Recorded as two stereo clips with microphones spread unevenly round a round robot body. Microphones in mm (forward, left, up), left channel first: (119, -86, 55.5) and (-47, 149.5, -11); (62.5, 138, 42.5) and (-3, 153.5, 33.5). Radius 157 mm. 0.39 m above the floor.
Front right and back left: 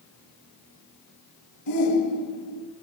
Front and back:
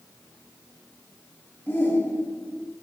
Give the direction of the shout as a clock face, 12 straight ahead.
3 o'clock.